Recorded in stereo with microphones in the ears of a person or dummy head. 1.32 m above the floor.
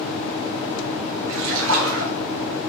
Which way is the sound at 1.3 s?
70° right (ahead or behind).